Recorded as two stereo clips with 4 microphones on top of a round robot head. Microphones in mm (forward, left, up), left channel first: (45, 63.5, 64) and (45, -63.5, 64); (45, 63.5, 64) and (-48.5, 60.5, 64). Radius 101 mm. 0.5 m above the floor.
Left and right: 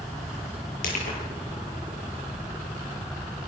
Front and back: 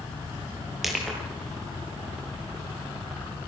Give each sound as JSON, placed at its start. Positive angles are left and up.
{"t": 0.8, "sound": "crushing", "azimuth_deg": 95, "distance_m": 9.0}